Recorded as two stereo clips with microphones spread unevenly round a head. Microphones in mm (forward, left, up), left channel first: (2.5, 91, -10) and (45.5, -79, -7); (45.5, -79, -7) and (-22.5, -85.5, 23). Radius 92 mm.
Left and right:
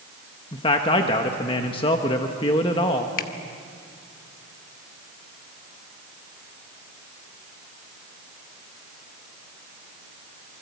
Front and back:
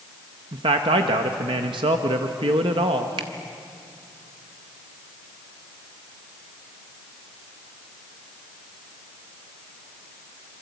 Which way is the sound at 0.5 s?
165° left.